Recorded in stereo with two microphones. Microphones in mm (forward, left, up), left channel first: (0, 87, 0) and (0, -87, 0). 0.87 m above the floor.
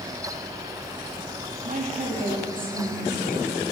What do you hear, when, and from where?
1.6 s a woman speaking: 50° right (ahead or behind), 1.1 m; by 3.5 s 20° right (ahead or behind), 2 m